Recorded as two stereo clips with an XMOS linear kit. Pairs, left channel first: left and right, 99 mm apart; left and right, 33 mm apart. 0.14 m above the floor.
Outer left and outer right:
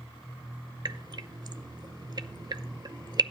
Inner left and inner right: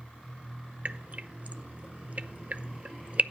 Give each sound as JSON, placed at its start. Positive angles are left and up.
{"t": 0.8, "sound": "dripping", "side_deg": -45, "distance_m": 0.5}